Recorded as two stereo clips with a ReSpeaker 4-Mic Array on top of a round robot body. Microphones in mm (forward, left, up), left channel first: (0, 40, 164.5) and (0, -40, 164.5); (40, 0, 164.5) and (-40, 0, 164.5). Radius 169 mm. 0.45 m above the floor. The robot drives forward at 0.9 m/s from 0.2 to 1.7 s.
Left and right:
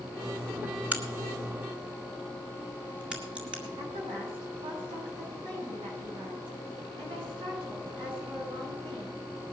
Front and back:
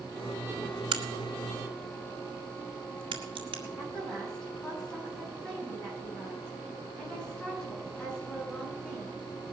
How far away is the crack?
About 1.1 m.